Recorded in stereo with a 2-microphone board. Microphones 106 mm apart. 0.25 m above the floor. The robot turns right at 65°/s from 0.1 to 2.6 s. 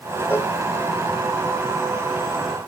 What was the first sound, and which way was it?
A cowbell, 20° left (ahead or behind).